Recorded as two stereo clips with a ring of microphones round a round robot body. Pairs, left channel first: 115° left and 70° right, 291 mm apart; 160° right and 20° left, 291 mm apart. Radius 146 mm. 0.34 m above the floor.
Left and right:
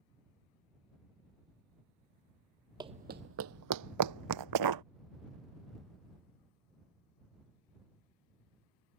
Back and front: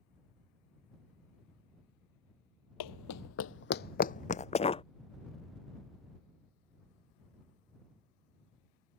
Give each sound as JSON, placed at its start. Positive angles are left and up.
{"t": 2.8, "sound": "running footsteps", "azimuth_deg": -145}